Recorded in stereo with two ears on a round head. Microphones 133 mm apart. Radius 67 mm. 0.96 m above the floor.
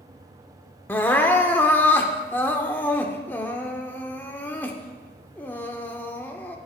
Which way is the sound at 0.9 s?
15° left (ahead or behind).